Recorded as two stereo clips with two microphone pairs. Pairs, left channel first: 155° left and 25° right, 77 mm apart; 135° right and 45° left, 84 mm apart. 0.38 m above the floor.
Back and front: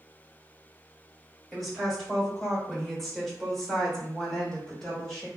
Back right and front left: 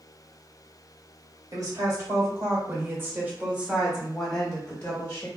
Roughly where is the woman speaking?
Ahead left.